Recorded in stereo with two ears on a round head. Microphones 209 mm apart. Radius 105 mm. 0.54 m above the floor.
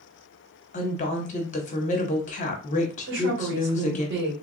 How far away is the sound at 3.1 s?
About 1.6 m.